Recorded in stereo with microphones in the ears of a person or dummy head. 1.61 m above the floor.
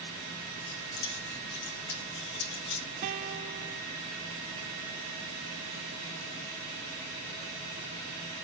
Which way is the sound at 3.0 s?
40° right (ahead or behind).